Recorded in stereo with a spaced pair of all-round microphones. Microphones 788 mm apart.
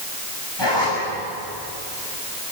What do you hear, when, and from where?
0.6 s a zipper: 30° left (ahead or behind), 8 m